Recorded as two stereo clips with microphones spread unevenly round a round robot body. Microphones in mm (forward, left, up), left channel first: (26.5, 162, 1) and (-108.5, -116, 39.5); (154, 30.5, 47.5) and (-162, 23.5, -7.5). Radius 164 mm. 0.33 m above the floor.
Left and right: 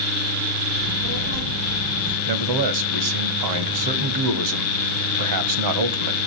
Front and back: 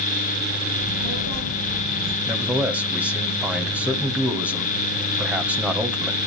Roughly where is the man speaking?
Right.